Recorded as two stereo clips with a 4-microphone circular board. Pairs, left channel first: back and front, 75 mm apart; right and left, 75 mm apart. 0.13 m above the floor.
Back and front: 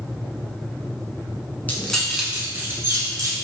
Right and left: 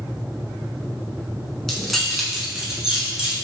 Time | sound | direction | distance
1.7 | keys jangling | 170° right | 0.8 m